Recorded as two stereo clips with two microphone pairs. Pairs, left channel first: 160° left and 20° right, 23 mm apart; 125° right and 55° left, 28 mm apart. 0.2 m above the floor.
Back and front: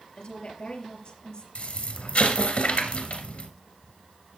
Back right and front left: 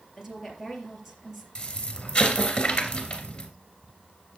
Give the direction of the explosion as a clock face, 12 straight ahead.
6 o'clock.